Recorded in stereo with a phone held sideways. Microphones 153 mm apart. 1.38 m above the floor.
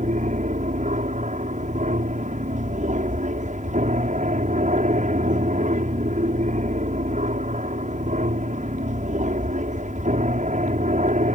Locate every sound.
0.0 s an aircraft: 55° right (ahead or behind)